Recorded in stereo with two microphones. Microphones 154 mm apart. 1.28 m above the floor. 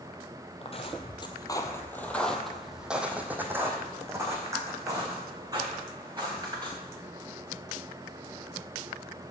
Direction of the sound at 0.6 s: 40° left (ahead or behind).